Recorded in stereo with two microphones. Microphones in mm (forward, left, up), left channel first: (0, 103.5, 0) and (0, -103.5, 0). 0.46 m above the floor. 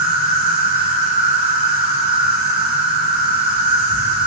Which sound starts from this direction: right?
An insect, at 0.0 s.